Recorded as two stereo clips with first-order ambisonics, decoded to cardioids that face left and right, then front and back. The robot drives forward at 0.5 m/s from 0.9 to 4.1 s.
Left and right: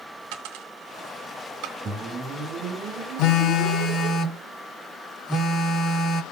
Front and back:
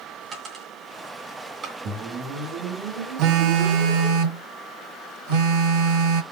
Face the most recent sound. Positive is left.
turn(degrees=155)